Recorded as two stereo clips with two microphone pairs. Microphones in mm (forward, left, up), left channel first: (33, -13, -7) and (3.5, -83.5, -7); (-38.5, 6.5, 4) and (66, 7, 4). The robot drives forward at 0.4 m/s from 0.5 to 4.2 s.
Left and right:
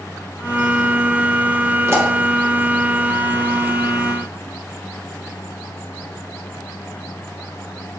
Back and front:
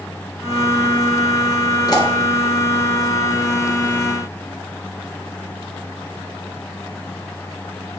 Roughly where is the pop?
Behind right.